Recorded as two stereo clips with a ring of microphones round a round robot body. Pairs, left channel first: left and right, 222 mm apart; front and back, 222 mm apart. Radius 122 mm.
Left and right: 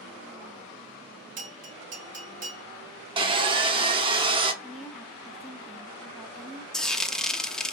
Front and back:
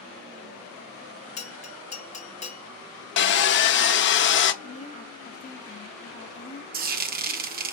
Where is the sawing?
25° right, 0.8 m.